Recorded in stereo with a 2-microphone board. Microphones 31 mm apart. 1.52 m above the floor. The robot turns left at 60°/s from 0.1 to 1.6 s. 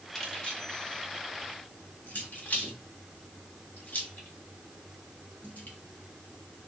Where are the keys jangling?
15° left (ahead or behind), 1.5 m; by 5.8 s 70° left (ahead or behind), 1.5 m.